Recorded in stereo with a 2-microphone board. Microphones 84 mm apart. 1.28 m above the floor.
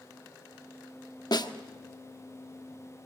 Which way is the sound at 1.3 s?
55° left (ahead or behind).